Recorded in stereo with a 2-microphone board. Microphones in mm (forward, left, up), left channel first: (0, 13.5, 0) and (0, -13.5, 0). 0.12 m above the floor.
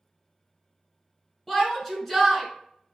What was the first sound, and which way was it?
A shout, 10° left (ahead or behind).